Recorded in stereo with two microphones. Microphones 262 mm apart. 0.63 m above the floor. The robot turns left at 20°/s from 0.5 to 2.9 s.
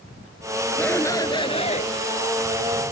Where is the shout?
5° left (ahead or behind); by 1.9 s 25° left (ahead or behind).